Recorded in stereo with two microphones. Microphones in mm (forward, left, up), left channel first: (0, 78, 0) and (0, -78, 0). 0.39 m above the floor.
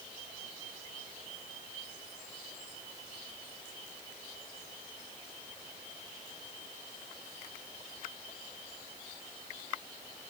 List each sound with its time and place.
Only background noise.